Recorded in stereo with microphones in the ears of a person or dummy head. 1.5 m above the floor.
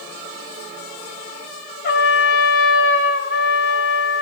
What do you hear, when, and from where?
1.8 s a trumpet: 65° left (ahead or behind), 2.5 m